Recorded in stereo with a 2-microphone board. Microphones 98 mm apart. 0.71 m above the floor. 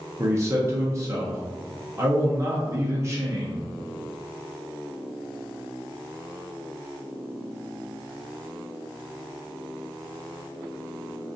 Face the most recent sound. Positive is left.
turn(degrees=-30)  # may be behind; listen again after turning